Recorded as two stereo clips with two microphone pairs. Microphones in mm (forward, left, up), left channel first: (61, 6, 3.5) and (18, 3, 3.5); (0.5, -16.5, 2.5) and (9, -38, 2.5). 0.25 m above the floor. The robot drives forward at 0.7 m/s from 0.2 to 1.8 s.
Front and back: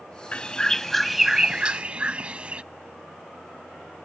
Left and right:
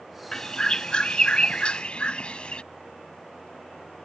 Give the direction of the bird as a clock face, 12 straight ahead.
10 o'clock.